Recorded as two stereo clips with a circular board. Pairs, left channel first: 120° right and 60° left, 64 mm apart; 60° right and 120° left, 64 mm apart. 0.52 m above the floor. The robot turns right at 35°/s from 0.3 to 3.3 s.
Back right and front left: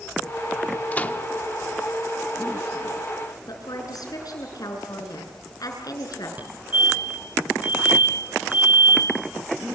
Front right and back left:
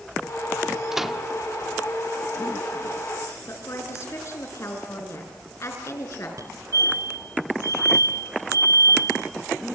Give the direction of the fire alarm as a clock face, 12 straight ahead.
8 o'clock.